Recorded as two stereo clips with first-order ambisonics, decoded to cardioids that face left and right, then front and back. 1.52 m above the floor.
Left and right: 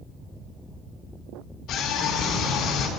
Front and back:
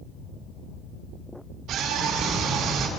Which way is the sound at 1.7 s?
135° left.